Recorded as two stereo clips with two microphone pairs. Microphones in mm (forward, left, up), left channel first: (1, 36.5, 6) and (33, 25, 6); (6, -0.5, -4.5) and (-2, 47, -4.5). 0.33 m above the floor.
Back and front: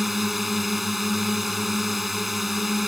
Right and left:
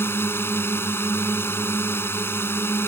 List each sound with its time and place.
0.0 s a drone: 110° right